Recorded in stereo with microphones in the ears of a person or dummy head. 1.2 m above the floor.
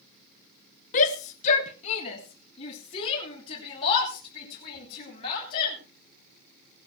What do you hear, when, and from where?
0.9 s a shout: 40° left (ahead or behind), 0.9 m; by 5.8 s 30° left (ahead or behind), 6.5 m